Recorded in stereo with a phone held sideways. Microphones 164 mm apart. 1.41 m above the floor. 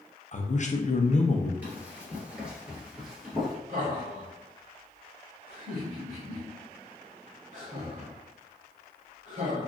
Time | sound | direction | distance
0.3 | a man speaking | 45° left (ahead or behind) | 0.6 m
1.6 | running footsteps | 10° right (ahead or behind) | 1.5 m
3.7 | laughter | 50° right (ahead or behind) | 1.3 m